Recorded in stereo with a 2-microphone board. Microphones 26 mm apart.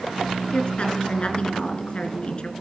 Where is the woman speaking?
40° left (ahead or behind), 2.5 m.